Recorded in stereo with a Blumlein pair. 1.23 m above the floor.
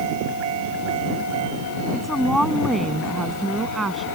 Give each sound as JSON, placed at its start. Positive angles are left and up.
{"t": 1.9, "sound": "a woman speaking", "azimuth_deg": 0}